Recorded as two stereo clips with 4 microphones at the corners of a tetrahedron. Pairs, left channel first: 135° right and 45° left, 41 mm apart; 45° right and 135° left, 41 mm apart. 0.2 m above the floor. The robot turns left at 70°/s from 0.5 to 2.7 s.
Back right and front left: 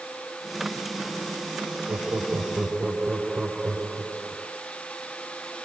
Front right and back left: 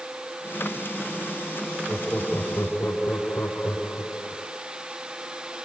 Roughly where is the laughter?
Ahead left.